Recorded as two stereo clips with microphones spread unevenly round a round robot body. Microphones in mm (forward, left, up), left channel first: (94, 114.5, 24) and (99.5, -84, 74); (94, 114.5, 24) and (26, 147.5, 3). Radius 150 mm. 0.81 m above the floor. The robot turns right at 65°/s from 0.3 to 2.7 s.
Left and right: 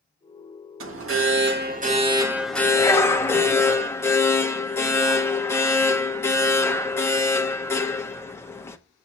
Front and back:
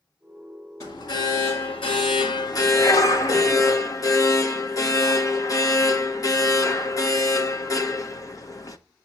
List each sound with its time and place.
0.8 s an alarm: 100° right, 1.4 m; by 8.8 s 25° left, 1.4 m